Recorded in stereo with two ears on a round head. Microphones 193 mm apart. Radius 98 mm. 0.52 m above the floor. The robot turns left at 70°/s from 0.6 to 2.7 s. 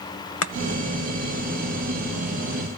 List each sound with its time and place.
0.4 s chopping: 65° left (ahead or behind), 0.7 m